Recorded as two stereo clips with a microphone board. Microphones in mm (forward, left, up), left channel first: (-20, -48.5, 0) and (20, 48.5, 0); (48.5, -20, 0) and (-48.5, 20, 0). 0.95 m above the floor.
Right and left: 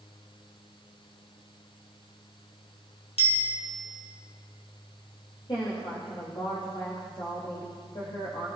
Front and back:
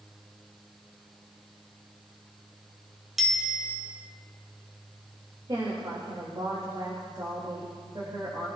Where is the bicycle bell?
115° right, 3.5 m.